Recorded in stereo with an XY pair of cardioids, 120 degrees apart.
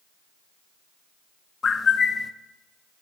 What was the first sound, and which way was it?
A bird, 35° left.